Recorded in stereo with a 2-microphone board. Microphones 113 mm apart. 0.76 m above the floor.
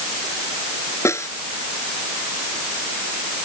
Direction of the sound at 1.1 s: 25° left (ahead or behind).